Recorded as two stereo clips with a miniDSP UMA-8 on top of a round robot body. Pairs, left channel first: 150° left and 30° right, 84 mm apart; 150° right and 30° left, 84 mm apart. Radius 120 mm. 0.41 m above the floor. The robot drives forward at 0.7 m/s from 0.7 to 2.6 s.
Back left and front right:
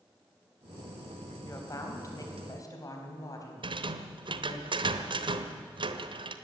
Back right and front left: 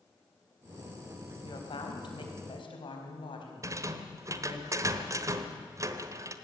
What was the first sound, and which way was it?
A woman speaking, 160° right.